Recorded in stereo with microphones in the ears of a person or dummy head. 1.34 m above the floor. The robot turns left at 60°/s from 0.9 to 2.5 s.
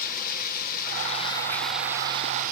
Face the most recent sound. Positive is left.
turn(degrees=-50)